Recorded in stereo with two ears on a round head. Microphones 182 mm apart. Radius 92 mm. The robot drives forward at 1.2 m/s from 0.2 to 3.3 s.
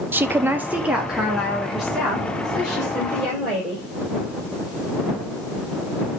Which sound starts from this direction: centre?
A woman speaking, at 0.1 s.